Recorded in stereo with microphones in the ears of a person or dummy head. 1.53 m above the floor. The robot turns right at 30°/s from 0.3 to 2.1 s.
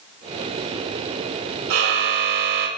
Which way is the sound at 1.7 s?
75° right (ahead or behind).